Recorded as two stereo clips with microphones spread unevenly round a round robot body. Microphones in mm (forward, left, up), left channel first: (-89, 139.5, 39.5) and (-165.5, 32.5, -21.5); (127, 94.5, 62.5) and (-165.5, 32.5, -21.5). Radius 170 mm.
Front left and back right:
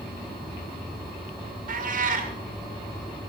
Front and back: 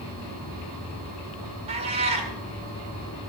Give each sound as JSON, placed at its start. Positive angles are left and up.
{"t": 1.7, "sound": "a cat meowing", "azimuth_deg": -95, "distance_m": 1.3}